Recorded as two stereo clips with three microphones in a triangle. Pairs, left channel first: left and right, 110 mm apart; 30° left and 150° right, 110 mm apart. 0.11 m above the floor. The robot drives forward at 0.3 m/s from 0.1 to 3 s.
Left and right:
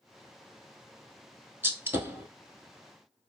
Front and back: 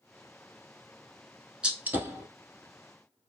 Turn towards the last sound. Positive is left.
turn(degrees=-155)